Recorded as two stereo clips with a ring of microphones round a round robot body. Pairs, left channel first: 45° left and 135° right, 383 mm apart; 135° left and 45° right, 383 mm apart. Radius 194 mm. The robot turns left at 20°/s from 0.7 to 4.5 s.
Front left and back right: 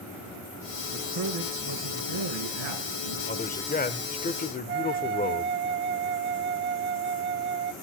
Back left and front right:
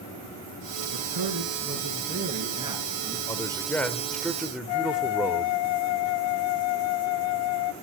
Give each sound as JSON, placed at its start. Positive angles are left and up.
{"t": 0.9, "sound": "a man speaking", "azimuth_deg": -90, "distance_m": 4.5}
{"t": 3.3, "sound": "a man speaking", "azimuth_deg": 65, "distance_m": 1.1}
{"t": 4.7, "sound": "a flute", "azimuth_deg": 160, "distance_m": 0.6}